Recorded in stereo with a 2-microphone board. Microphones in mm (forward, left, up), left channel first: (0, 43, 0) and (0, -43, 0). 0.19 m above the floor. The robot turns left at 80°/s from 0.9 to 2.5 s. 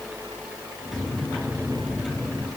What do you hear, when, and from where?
Only background noise.